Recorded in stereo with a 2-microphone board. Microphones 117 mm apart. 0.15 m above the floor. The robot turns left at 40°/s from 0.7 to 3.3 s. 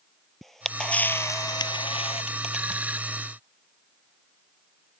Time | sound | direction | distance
0.4 | a camera shutter | 175° left | ?